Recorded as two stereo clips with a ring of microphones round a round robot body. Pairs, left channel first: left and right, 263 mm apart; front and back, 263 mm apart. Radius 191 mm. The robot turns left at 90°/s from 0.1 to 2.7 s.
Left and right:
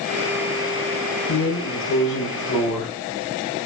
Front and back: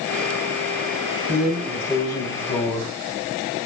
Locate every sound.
1.3 s a drawer: 125° left, 4.5 m; by 3.6 s straight ahead, 4.5 m